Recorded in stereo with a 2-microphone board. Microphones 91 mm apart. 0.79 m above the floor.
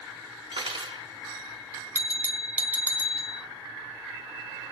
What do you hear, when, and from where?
0.5 s cutlery clinking: 65° right (ahead or behind), 1.1 m
1.9 s a bell: 20° right (ahead or behind), 0.8 m